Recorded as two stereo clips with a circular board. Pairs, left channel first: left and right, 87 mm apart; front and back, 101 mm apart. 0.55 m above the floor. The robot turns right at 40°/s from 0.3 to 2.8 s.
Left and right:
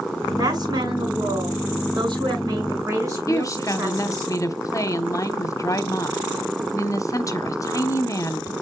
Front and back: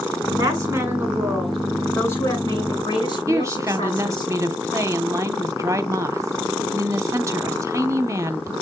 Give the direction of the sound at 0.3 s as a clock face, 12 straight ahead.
4 o'clock.